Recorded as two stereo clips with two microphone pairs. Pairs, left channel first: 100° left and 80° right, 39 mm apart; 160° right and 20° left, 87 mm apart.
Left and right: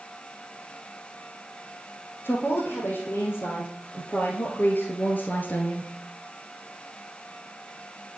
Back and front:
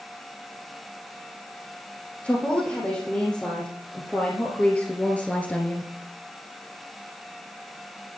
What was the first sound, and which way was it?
A woman speaking, 125° left.